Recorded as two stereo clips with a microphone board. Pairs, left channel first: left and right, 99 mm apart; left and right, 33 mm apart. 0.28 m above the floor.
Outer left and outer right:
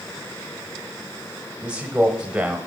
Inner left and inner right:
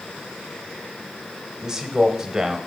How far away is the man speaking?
About 0.9 m.